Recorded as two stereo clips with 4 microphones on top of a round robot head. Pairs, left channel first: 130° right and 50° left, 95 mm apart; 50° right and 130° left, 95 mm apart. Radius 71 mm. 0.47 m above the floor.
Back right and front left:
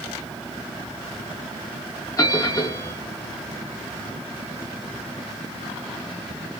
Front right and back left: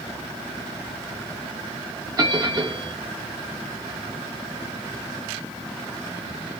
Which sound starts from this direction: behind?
A bell, at 2.2 s.